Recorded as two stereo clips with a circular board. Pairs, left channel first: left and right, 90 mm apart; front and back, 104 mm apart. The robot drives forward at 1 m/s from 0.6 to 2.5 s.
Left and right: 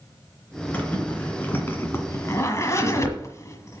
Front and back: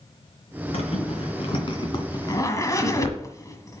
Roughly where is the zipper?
Ahead.